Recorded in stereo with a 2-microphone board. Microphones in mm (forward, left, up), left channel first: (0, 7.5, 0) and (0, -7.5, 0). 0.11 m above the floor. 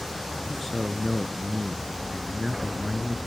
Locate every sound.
0.5 s a man speaking: 25° left (ahead or behind), 1.5 m